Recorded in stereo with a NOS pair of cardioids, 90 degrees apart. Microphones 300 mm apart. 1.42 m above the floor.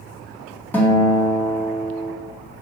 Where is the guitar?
5° left, 2.0 m.